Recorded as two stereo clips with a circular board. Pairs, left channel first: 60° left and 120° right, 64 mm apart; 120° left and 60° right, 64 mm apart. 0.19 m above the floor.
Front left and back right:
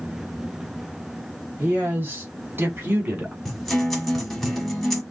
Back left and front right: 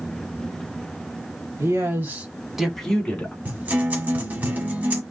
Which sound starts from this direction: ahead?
A guitar, at 3.5 s.